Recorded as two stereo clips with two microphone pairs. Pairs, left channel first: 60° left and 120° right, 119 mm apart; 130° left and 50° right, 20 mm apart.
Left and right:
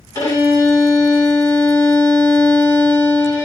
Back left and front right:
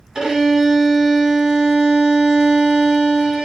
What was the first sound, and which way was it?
A violin, 5° left.